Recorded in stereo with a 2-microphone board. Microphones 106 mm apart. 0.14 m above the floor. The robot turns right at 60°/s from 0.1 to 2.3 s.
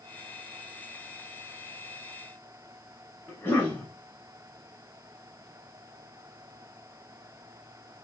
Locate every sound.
3.3 s a cough: 25° left (ahead or behind), 1.3 m